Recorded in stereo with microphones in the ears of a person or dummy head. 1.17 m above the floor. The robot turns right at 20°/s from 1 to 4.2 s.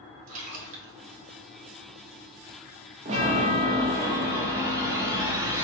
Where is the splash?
30° right (ahead or behind), 0.9 m.